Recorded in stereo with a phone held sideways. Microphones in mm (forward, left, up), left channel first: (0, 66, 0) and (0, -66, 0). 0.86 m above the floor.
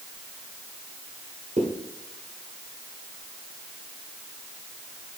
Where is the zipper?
65° right (ahead or behind), 1.9 m.